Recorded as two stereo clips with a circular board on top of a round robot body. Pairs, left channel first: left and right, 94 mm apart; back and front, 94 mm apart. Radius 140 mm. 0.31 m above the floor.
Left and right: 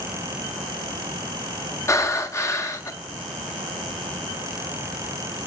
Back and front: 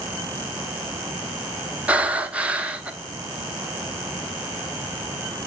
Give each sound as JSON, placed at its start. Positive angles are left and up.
{"t": 1.9, "sound": "breathing", "azimuth_deg": 65, "distance_m": 1.3}